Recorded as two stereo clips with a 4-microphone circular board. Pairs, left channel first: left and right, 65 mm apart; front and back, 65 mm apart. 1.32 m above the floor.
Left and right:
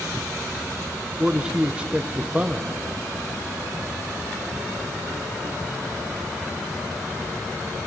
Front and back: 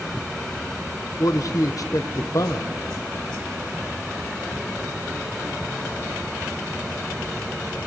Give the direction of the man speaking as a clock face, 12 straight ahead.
1 o'clock.